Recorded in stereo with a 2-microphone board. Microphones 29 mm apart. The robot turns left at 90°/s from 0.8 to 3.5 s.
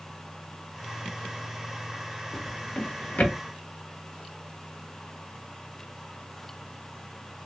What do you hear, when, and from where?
2.3 s a drawer: 5° left (ahead or behind), 1.1 m; by 3.4 s 50° left (ahead or behind), 1.1 m